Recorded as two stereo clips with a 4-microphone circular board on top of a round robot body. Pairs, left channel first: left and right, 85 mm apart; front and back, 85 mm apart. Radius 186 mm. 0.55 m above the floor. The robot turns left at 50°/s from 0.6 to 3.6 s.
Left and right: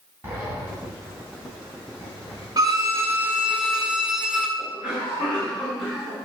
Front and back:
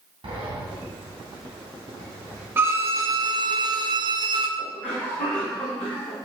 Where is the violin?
120° right, 1.4 m; by 4.5 s 175° right, 1.4 m.